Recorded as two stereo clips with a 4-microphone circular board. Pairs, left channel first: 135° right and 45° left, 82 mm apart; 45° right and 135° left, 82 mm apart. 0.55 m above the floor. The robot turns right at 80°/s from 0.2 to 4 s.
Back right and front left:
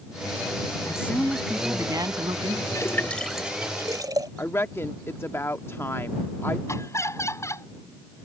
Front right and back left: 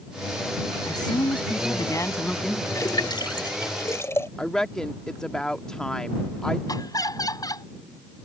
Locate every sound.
0.9 s a woman speaking: 90° right; by 2.6 s 55° left
2.8 s a splash: 90° right; by 4.3 s 10° left
4.4 s a woman speaking: 120° right
6.7 s laughter: 85° right